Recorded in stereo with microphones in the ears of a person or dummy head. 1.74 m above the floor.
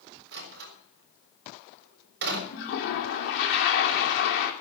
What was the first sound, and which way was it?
A door slam, 65° right (ahead or behind).